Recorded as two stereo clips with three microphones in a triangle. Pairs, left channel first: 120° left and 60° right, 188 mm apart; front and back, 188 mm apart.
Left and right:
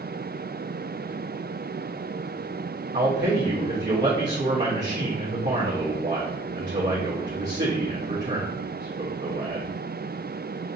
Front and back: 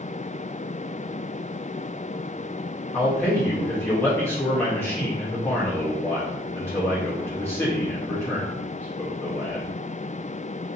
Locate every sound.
2.9 s a man speaking: 80° right, 1.0 m